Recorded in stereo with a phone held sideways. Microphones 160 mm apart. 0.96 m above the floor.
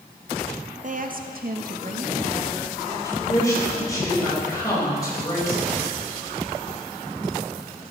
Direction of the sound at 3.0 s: 25° left (ahead or behind).